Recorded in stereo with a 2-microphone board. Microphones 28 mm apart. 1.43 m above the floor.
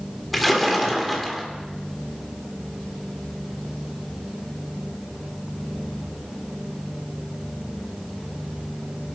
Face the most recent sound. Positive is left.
turn(degrees=0)  # may be behind; listen again after turning